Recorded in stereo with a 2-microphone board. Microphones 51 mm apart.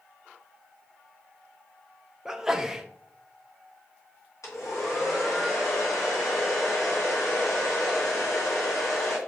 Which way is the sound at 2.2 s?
10° right (ahead or behind).